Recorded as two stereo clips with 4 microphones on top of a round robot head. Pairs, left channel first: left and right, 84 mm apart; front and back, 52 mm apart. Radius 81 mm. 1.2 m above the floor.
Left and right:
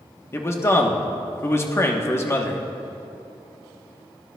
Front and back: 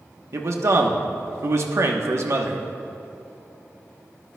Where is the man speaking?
150° left, 1.1 m.